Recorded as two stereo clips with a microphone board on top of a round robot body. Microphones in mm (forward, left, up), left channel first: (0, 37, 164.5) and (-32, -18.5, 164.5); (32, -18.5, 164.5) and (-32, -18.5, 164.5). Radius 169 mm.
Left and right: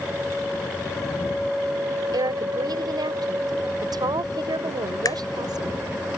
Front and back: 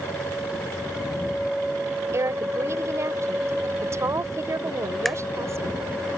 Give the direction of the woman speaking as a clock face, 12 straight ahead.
4 o'clock.